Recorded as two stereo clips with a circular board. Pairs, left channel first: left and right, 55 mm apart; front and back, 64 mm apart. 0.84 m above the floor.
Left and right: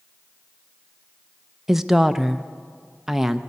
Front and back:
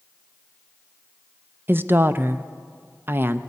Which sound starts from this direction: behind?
A woman speaking, at 1.7 s.